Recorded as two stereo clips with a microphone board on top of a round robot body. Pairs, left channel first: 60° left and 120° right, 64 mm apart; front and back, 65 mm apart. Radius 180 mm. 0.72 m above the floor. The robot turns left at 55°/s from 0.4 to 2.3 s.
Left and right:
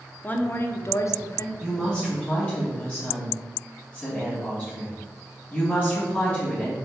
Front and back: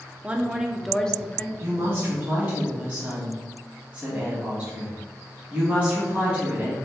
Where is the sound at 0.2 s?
115° left, 0.7 m; by 1.5 s 55° left, 0.7 m.